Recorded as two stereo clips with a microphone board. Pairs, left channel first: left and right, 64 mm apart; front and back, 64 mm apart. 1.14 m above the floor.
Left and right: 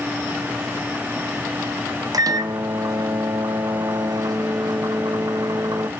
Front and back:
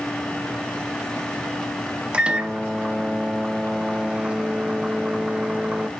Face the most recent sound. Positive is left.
turn(degrees=-105)